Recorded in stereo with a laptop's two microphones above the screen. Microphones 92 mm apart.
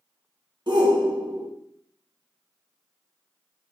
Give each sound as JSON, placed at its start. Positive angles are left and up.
{"t": 0.7, "sound": "a shout", "side_deg": -55, "distance_m": 1.8}